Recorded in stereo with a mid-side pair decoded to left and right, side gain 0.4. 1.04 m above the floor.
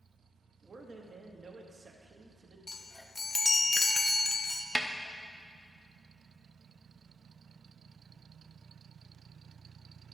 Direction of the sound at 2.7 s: 25° left.